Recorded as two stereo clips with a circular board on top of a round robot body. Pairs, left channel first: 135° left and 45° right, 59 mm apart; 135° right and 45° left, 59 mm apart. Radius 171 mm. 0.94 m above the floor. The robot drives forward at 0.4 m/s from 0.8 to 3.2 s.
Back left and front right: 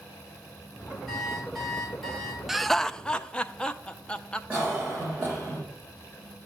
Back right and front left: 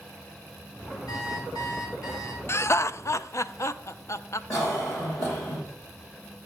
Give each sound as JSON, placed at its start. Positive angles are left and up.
{"t": 1.1, "sound": "an alarm clock", "azimuth_deg": -135, "distance_m": 3.0}
{"t": 2.5, "sound": "laughter", "azimuth_deg": -130, "distance_m": 0.5}
{"t": 4.5, "sound": "a cough", "azimuth_deg": -120, "distance_m": 3.0}